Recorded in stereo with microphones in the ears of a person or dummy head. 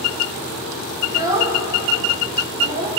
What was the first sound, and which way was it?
A child speaking, 20° right (ahead or behind).